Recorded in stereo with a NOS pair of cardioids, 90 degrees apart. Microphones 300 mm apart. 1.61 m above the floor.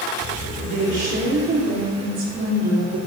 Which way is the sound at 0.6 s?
65° right.